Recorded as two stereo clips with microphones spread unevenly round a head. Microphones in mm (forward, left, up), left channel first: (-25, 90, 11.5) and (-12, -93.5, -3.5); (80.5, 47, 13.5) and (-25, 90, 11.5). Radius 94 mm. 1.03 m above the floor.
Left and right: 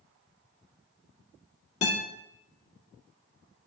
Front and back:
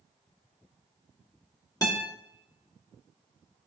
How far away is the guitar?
About 1.8 m.